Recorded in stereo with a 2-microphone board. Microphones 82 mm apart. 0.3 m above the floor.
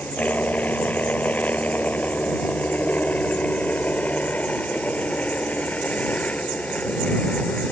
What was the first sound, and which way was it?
A helicopter, 20° left (ahead or behind).